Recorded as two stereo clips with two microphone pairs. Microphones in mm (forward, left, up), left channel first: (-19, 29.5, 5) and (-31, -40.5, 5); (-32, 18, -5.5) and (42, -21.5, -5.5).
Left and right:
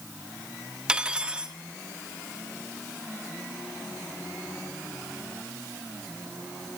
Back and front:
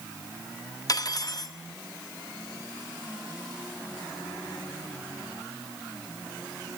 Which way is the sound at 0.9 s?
175° right.